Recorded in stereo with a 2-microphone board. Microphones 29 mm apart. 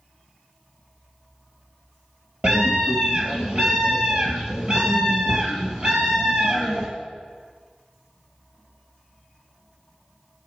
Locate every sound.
2.4 s a scream: 45° right (ahead or behind), 3 m